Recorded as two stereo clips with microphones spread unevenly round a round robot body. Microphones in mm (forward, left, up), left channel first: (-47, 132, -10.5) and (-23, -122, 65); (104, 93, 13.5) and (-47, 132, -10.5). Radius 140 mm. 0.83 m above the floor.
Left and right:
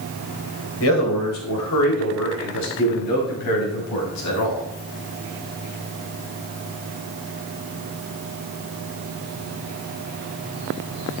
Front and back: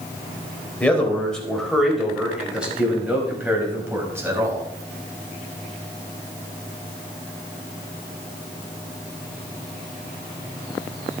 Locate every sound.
0.8 s a man speaking: 65° left, 4 m; by 4.7 s 95° left, 6 m